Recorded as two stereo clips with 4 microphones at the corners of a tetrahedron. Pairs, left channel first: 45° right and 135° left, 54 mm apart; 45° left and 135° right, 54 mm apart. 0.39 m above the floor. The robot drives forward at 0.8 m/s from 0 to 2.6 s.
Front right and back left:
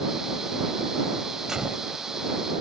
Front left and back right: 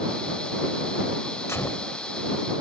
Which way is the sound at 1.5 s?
60° left.